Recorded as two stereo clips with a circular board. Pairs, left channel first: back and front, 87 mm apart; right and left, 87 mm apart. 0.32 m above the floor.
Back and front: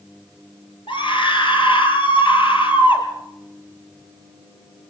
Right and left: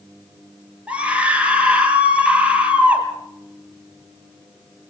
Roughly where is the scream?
Behind.